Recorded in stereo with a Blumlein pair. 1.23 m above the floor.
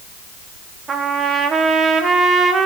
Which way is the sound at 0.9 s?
20° right.